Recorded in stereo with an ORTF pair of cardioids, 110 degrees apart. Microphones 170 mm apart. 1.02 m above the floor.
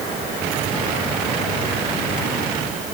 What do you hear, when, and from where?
Only background noise.